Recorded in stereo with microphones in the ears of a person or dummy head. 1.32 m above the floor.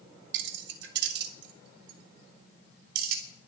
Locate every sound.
0.3 s keys jangling: 75° right (ahead or behind), 1.6 m; by 3.2 s 55° right (ahead or behind), 4 m